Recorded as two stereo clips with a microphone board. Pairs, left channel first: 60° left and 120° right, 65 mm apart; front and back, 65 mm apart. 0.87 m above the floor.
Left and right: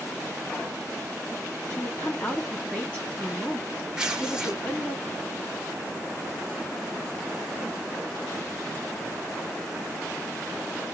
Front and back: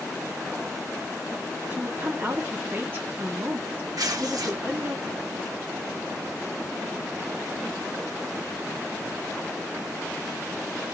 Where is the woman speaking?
125° left, 2 m.